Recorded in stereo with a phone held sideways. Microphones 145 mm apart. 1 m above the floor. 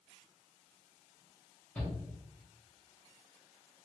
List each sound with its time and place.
1.8 s a shout: 10° left (ahead or behind), 1.5 m